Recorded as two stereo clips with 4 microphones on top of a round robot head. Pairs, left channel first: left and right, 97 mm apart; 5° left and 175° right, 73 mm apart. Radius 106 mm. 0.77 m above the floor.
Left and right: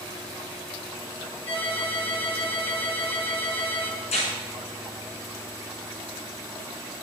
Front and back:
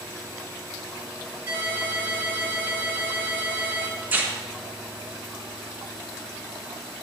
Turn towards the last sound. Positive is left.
turn(degrees=120)